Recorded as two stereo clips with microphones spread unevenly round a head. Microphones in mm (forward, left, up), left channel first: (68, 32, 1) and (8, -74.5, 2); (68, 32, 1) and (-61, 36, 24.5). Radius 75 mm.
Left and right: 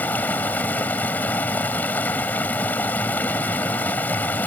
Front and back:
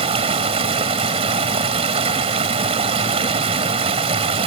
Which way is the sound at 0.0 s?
140° left.